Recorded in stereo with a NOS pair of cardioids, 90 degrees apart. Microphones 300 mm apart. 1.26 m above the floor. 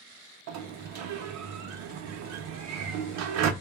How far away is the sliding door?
About 0.6 m.